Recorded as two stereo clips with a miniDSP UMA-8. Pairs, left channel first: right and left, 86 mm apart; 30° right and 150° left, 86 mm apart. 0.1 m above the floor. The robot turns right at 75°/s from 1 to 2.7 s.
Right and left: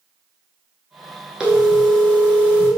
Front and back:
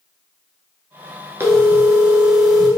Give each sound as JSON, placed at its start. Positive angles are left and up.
{"t": 1.4, "sound": "a phone ringing", "azimuth_deg": 155, "distance_m": 0.7}